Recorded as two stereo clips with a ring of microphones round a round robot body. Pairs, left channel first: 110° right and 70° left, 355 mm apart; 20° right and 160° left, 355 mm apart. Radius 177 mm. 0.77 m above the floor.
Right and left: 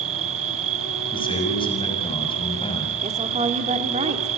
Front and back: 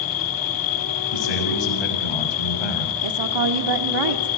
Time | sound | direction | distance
0.0 | an insect | 10° left | 1.2 m
1.1 | a man speaking | 35° right | 6.5 m
3.0 | a woman speaking | 140° left | 2.0 m